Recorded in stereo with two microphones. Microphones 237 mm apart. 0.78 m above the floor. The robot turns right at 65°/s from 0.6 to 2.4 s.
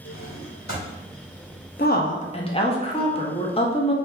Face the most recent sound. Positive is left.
turn(degrees=145)